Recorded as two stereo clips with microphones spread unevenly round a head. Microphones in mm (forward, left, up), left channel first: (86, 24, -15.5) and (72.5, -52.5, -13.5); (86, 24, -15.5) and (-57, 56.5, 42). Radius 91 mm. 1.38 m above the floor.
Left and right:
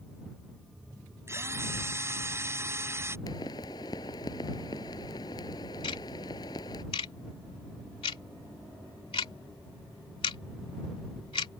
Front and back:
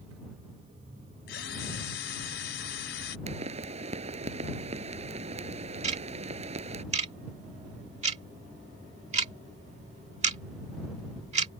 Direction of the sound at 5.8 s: 125° left.